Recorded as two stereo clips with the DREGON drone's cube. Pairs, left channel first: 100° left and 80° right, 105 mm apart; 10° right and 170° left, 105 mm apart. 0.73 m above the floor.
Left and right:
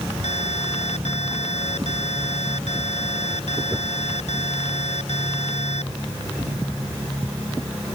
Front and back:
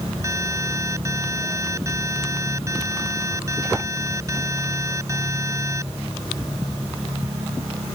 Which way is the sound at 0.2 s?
105° left.